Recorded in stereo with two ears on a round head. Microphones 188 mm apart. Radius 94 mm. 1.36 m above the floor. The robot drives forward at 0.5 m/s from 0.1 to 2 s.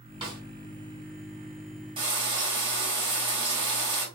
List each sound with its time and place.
0.2 s a snare drum: 25° right (ahead or behind), 1.6 m
2.0 s frying: 25° right (ahead or behind), 2 m